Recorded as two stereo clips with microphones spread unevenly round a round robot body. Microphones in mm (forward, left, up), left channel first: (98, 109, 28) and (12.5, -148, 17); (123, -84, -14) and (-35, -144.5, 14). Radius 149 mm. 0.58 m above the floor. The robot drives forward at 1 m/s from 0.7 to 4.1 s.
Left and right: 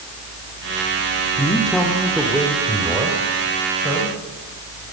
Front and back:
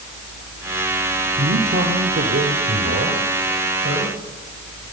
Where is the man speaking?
155° left, 1.4 m; by 4.2 s 175° left, 4 m.